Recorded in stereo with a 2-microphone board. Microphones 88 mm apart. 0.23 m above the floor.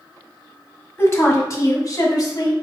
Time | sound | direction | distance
1.0 | a woman speaking | 25° left (ahead or behind) | 1.2 m